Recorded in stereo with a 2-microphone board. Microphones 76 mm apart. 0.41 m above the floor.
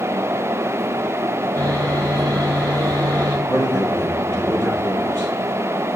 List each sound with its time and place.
1.6 s sawing: 30° left (ahead or behind), 1.9 m
3.5 s a man speaking: 25° left (ahead or behind), 3.5 m